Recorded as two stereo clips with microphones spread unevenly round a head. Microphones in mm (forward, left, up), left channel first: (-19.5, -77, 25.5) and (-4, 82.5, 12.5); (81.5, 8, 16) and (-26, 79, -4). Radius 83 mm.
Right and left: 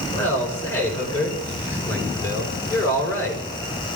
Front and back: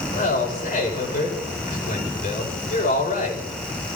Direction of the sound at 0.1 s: 20° right.